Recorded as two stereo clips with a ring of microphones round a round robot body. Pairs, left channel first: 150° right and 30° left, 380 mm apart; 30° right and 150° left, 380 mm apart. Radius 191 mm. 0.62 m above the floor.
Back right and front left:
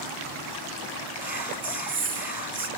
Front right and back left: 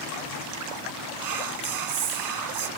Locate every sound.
1.2 s whispering: 115° left, 1.5 m